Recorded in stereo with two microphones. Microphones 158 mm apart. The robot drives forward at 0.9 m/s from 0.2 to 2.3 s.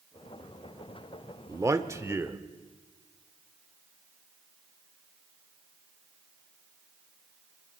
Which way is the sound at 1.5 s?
20° right (ahead or behind).